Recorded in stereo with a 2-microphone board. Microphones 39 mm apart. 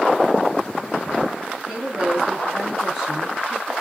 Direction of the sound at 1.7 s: 10° right (ahead or behind).